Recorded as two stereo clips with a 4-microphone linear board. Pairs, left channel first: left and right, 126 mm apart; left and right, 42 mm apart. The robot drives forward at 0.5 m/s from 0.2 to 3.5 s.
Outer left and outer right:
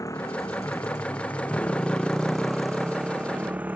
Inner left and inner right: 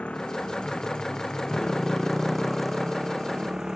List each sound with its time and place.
0.0 s a motorcycle: 25° left (ahead or behind); by 3.8 s 15° right (ahead or behind)